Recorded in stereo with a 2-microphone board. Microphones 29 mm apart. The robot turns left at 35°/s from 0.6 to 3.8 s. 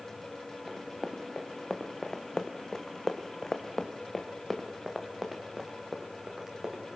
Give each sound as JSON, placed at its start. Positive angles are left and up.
{"t": 0.7, "sound": "running footsteps", "side_deg": 0, "distance_m": 3.0}